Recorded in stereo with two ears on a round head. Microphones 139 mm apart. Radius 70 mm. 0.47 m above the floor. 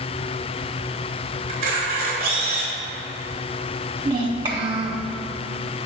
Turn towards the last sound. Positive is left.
turn(degrees=-30)  # may be behind; listen again after turning